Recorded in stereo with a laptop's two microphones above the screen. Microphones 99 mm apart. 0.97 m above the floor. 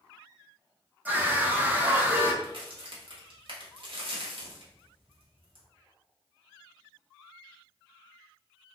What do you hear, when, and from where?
1.1 s a scream: 15° right (ahead or behind), 0.7 m
2.4 s a crack: 60° right (ahead or behind), 0.9 m